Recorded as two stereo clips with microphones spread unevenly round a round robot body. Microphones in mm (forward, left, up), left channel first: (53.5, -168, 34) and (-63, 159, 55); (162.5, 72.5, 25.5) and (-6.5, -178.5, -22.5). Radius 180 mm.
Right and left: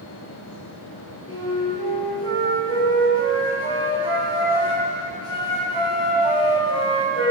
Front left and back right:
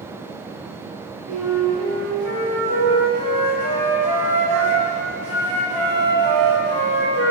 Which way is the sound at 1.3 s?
145° right.